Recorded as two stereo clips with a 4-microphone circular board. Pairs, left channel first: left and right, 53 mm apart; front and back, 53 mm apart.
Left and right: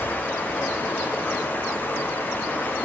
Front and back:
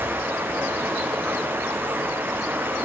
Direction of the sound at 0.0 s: 135° left.